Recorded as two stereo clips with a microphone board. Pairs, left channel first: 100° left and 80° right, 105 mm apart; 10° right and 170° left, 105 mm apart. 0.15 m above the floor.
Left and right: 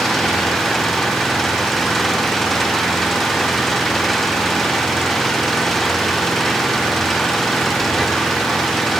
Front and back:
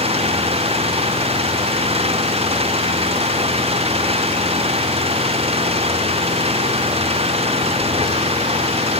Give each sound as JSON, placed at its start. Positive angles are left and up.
{"t": 0.0, "sound": "an engine running", "azimuth_deg": -170}